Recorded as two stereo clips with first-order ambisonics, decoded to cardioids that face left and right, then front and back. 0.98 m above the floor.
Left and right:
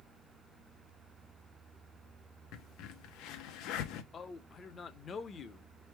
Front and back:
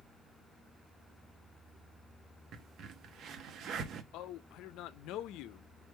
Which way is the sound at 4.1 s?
25° left.